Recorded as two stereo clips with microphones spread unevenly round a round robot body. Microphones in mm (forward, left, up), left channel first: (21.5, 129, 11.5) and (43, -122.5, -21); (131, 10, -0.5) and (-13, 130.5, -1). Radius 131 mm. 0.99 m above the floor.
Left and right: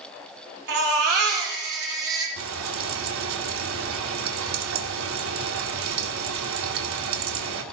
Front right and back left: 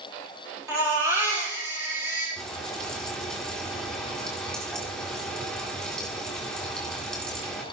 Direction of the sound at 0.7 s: 140° right.